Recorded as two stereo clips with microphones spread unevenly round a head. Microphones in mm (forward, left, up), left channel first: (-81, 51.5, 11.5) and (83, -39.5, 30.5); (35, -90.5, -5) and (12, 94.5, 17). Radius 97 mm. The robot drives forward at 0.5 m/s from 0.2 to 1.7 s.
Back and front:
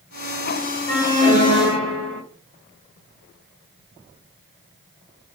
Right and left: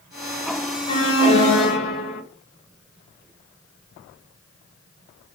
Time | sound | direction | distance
0.9 | an alarm | 140° right | 1.9 m